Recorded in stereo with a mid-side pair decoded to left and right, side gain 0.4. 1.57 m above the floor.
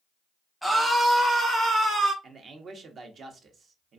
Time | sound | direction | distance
0.6 | a scream | 5° right | 0.7 m
2.2 | a man speaking | 55° right | 0.7 m